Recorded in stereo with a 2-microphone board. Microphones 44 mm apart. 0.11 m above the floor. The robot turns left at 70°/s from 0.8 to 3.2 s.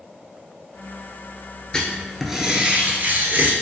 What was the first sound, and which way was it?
Writing, 25° left.